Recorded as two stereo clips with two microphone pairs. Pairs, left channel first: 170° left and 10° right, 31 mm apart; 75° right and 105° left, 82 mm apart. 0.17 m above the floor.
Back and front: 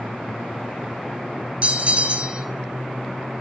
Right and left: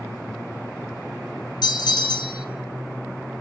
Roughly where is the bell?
Ahead right.